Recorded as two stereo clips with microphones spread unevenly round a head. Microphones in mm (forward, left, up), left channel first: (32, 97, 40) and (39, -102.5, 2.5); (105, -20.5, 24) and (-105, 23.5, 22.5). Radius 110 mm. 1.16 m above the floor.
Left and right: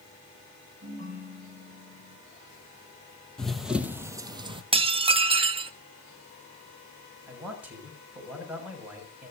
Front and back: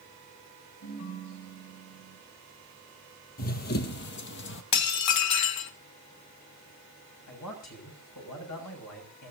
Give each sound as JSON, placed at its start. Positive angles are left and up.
{"t": 0.8, "sound": "a ringtone", "azimuth_deg": -40, "distance_m": 7.5}
{"t": 3.4, "sound": "running footsteps", "azimuth_deg": 20, "distance_m": 1.5}
{"t": 4.7, "sound": "dishes clattering", "azimuth_deg": -20, "distance_m": 1.1}
{"t": 7.3, "sound": "a man speaking", "azimuth_deg": -5, "distance_m": 7.0}